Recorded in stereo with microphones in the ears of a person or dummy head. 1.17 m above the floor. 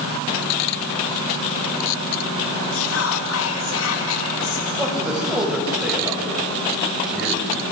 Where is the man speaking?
5° right (ahead or behind), 6.5 m.